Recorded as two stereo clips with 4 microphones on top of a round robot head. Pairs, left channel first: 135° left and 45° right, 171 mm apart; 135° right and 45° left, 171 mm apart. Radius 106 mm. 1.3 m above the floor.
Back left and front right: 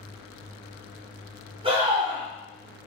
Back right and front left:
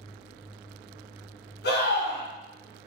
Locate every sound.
1.6 s a scream: 105° right, 3 m